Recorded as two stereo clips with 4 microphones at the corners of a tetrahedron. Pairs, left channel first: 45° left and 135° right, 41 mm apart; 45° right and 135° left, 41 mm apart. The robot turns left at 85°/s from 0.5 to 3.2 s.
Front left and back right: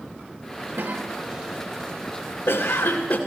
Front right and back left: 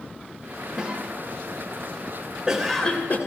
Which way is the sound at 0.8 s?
155° right.